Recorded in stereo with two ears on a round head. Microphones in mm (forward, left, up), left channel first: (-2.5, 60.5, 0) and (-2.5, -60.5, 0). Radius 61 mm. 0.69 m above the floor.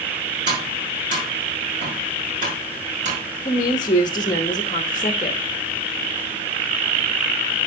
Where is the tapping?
35° right (ahead or behind), 6.5 m.